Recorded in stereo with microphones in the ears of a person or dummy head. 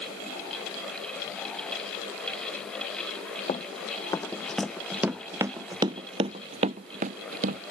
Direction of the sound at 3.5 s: 25° left (ahead or behind).